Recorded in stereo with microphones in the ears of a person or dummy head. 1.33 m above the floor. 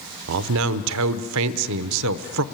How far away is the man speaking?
About 0.7 m.